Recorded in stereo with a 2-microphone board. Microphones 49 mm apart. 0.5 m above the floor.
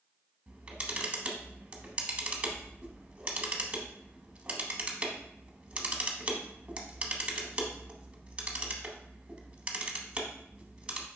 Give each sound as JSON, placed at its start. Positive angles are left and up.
{"t": 0.5, "sound": "a camera shutter", "side_deg": -25, "distance_m": 0.9}